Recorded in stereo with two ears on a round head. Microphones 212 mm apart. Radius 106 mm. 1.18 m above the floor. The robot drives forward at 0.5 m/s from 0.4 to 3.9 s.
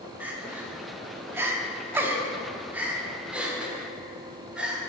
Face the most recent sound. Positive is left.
turn(degrees=-5)  # may be behind; listen again after turning